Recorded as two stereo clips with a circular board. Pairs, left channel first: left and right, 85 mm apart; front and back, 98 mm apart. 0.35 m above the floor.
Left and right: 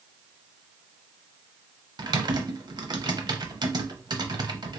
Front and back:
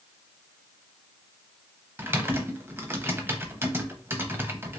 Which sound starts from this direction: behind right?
Typing on a keyboard, at 2.0 s.